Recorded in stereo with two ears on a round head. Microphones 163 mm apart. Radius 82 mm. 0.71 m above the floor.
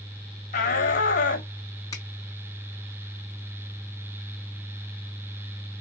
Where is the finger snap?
20° left (ahead or behind), 3.5 m.